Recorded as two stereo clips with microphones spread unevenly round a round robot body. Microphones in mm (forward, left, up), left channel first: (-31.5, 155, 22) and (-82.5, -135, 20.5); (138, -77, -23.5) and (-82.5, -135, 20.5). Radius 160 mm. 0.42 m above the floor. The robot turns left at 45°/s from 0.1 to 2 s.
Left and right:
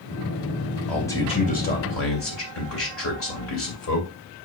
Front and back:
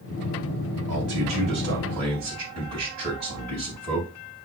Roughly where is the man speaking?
Behind.